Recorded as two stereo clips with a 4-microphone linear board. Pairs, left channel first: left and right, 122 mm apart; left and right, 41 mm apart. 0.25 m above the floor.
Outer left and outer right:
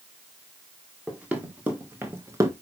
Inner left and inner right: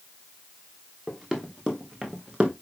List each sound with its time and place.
1.1 s running footsteps: 10° right (ahead or behind), 2.5 m; by 2.5 s 30° right (ahead or behind), 1.3 m